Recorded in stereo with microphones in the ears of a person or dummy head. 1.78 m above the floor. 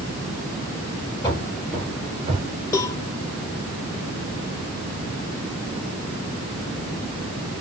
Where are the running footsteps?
15° left (ahead or behind), 1.8 m; by 2.5 s 35° right (ahead or behind), 2 m.